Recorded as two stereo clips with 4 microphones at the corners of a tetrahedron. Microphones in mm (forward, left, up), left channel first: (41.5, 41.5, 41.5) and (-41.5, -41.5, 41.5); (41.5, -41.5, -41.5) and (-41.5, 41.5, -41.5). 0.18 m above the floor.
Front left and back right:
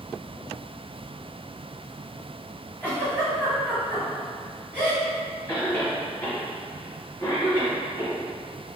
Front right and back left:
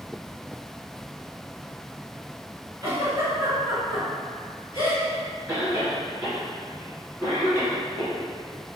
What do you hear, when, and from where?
2.8 s a giggle: 110° left, 1.6 m
5.5 s a cough: 85° left, 1.1 m